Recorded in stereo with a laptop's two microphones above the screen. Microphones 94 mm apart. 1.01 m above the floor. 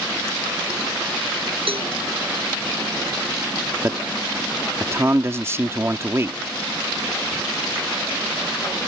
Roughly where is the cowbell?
Right.